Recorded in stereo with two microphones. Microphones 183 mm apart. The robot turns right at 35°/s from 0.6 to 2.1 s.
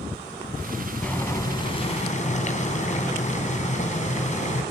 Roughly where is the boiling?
Ahead.